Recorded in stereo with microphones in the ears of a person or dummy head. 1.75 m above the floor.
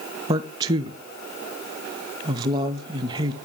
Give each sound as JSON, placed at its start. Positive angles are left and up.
{"t": 0.3, "sound": "a man speaking", "side_deg": -20, "distance_m": 0.6}